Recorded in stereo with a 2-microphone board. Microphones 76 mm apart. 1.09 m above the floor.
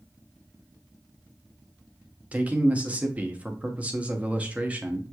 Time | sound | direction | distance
2.3 | a man speaking | 20° right (ahead or behind) | 0.6 m